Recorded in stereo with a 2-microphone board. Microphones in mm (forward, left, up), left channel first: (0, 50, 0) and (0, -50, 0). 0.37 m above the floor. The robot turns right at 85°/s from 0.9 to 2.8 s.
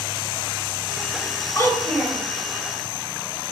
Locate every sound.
1.6 s a child speaking: 140° left, 1.2 m; by 2.2 s 165° right, 1.2 m